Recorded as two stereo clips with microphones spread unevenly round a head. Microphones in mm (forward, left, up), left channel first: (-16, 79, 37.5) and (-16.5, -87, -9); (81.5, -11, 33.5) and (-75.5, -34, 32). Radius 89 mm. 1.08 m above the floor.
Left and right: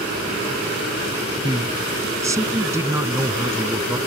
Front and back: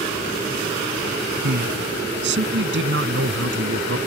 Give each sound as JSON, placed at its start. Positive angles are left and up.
{"t": 1.4, "sound": "a man speaking", "azimuth_deg": -160}